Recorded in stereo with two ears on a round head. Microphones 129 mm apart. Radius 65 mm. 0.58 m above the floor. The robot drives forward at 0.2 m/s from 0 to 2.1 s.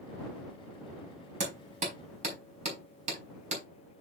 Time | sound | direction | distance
1.4 | hammering | 55° right (ahead or behind) | 4 m